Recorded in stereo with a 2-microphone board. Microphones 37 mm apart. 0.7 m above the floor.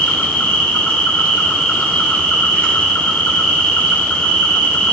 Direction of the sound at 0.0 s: 20° left (ahead or behind).